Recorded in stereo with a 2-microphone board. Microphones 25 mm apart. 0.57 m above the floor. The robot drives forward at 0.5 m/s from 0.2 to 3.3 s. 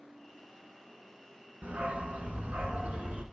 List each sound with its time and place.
1.6 s a dog barking: 80° right, 1.4 m; by 3.2 s 55° right (ahead or behind), 1.7 m